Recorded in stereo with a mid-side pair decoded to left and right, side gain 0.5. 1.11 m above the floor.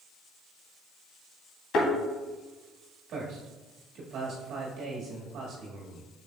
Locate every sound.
1.7 s a thud: 65° left, 2.5 m
3.1 s a man speaking: 65° right, 1.7 m